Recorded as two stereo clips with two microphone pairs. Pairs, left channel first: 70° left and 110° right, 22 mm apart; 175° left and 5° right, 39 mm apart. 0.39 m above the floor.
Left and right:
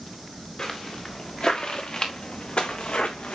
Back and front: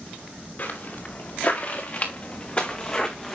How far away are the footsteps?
About 3.5 m.